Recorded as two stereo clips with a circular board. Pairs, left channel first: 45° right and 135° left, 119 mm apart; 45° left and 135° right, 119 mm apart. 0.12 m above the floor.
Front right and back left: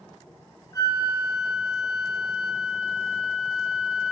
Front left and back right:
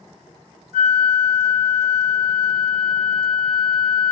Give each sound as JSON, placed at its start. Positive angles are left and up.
{"t": 0.7, "sound": "a flute", "azimuth_deg": -100, "distance_m": 0.7}